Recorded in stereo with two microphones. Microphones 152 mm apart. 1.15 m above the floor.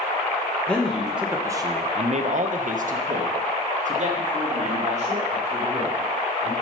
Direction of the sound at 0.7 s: 10° left (ahead or behind).